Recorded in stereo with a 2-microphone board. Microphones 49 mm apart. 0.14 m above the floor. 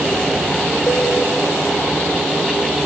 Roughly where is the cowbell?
Left.